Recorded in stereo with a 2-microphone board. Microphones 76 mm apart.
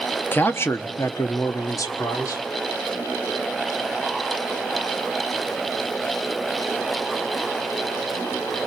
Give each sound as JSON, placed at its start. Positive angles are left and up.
{"t": 0.3, "sound": "a man speaking", "side_deg": 25, "distance_m": 0.8}